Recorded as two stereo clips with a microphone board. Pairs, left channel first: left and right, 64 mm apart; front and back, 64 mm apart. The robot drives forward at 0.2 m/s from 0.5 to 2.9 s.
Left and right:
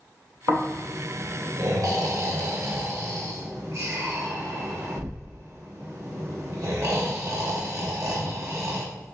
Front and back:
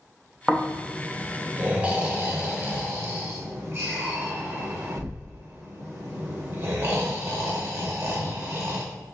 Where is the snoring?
95° right, 0.7 m; by 8.8 s 125° right, 0.9 m.